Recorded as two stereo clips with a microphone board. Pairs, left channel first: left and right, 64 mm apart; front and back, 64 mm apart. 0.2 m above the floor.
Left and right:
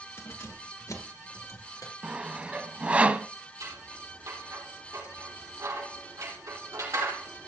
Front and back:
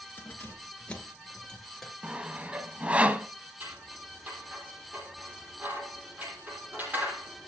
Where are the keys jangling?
55° left, 2.5 m; by 1.9 s 85° left, 3 m.